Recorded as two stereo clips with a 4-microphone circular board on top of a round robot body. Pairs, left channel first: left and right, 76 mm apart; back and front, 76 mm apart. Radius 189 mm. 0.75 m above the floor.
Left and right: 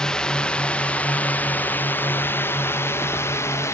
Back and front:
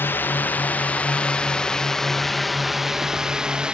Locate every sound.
0.0 s a drone: 160° left; by 3.7 s 70° left